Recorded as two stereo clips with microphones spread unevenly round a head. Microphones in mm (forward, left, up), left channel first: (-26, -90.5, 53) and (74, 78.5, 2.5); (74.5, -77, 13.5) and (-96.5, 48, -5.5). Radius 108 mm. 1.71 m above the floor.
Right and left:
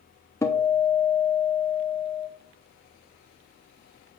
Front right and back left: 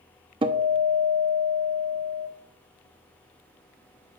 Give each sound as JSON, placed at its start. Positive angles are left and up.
{"t": 0.4, "sound": "a guitar", "azimuth_deg": -160, "distance_m": 0.7}